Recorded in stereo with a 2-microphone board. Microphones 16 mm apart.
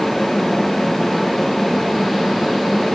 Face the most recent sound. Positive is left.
No sound to turn to.